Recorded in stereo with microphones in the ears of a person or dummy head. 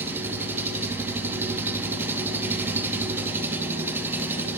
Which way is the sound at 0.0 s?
15° right (ahead or behind).